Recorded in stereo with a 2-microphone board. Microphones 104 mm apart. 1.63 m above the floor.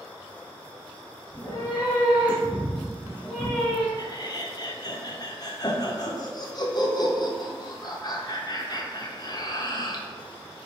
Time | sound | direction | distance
1.3 | a cat meowing | 30° right (ahead or behind) | 1.7 m
4.0 | laughter | 40° left (ahead or behind) | 0.6 m